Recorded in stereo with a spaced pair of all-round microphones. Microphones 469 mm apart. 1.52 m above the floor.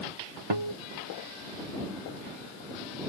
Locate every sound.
0.5 s a guitar: 70° right (ahead or behind)